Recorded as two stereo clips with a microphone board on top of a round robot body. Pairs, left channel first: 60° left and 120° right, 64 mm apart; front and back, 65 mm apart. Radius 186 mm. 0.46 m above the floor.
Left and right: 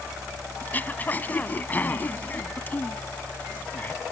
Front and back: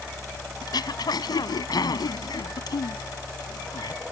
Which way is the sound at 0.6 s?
5° right.